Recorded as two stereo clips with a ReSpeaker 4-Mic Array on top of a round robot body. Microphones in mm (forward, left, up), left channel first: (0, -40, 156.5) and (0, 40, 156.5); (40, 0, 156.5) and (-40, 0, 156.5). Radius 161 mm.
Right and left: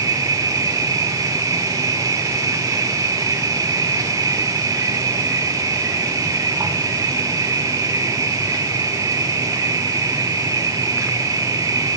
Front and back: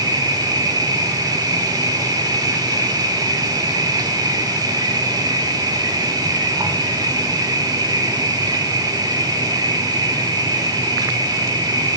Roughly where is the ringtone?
I don't hear a ringtone.